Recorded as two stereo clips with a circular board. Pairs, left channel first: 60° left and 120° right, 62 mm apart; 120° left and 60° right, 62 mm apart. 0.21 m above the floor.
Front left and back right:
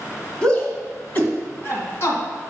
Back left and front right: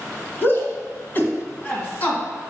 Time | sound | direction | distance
0.4 | a shout | 120° left | 1.9 m